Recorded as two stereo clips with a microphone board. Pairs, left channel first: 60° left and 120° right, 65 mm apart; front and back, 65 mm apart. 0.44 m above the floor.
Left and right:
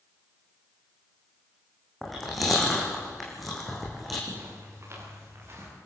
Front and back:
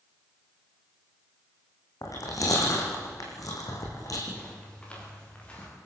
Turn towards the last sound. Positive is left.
turn(degrees=-70)